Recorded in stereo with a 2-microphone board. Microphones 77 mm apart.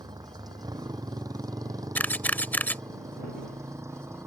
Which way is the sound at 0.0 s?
65° right (ahead or behind).